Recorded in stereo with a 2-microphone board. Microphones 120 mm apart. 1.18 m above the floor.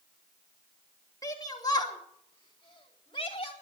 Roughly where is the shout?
Left.